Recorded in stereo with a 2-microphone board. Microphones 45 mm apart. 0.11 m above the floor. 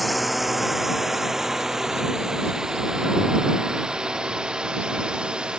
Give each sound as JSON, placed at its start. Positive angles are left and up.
{"t": 0.0, "sound": "a drone", "side_deg": 0}